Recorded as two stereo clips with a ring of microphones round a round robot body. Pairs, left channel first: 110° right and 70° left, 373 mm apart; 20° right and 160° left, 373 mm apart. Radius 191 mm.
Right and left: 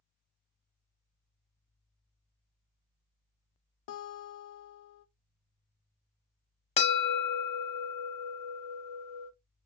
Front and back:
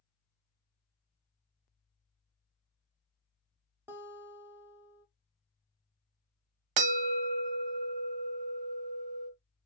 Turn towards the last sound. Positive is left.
turn(degrees=175)